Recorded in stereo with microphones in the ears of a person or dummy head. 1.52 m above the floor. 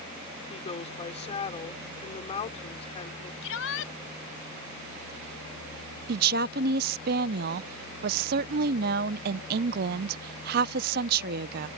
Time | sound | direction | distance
0.5 | a woman speaking | 35° left (ahead or behind) | ?
3.4 | a shout | 70° left (ahead or behind) | ?
6.1 | a woman speaking | 55° right (ahead or behind) | ?